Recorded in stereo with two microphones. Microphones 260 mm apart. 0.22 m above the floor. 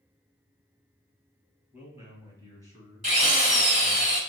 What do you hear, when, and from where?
1.7 s a man speaking: 10° right (ahead or behind), 1.4 m; by 4.0 s 20° right (ahead or behind), 3 m
3.0 s a drill: 25° right (ahead or behind), 1.3 m